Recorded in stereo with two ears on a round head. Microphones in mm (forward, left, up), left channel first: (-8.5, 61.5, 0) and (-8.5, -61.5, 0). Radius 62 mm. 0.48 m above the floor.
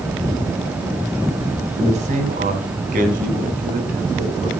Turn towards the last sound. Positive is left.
turn(degrees=-80)